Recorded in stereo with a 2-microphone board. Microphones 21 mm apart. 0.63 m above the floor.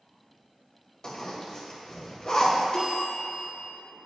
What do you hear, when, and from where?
1.0 s a zipper: 40° left (ahead or behind), 1.6 m
2.7 s a bell: 40° left (ahead or behind), 1.7 m